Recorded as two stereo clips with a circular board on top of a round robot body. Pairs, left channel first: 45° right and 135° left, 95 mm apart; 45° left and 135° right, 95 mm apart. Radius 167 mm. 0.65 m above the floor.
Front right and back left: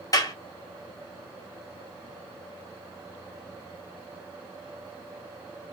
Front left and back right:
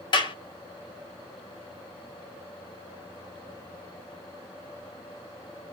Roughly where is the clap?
Ahead.